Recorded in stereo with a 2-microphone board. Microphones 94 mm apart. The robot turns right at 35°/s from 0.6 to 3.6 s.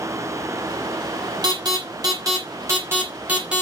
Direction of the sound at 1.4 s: 45° right (ahead or behind).